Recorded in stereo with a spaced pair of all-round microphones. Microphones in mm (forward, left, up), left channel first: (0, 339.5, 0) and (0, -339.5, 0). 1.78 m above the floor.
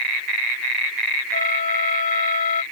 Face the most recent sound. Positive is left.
turn(degrees=85)